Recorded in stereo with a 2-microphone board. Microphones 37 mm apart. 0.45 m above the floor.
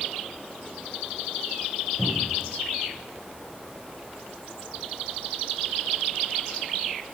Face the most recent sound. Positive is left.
turn(degrees=-75)  # may be behind; listen again after turning